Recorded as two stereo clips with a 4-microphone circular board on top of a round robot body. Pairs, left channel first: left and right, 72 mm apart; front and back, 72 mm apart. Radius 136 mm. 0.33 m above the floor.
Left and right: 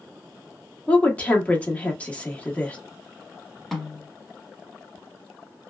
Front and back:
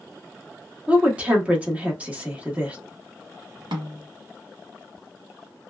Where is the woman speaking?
140° left, 1.2 m.